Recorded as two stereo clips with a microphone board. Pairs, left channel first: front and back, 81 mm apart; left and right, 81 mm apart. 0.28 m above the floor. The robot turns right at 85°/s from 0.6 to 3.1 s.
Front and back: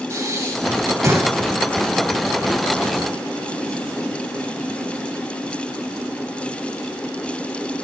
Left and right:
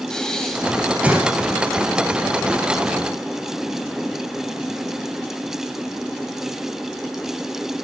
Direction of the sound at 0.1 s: 165° left.